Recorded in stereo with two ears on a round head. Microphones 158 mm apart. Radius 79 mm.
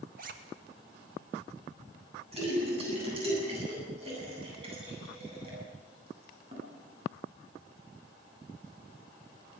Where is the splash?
35° right (ahead or behind), 9 m.